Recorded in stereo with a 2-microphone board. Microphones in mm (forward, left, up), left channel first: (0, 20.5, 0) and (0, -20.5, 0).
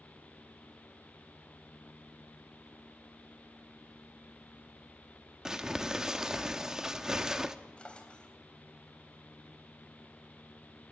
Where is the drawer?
25° left (ahead or behind), 3 m.